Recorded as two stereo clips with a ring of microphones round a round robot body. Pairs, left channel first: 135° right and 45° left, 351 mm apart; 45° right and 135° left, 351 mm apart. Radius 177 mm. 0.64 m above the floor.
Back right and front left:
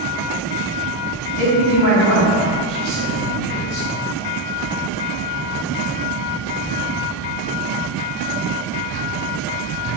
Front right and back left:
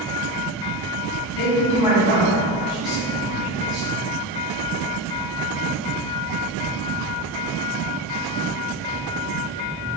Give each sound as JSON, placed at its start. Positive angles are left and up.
{"t": 1.4, "sound": "a man speaking", "azimuth_deg": -25, "distance_m": 1.5}